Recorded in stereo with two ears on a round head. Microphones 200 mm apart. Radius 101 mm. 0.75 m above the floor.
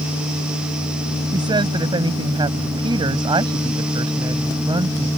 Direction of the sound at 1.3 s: 20° right (ahead or behind).